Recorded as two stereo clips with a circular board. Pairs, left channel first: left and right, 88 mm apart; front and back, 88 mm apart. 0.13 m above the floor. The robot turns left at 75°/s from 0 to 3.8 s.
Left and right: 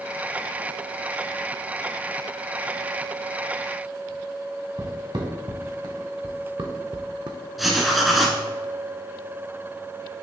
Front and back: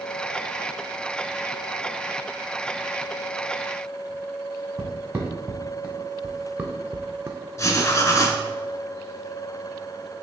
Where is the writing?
Straight ahead, 0.6 m.